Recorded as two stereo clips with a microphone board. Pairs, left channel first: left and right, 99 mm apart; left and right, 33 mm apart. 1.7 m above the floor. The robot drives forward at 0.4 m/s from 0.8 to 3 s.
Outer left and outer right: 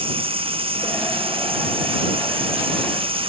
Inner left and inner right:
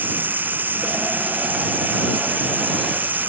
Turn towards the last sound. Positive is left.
turn(degrees=-65)  # may be behind; listen again after turning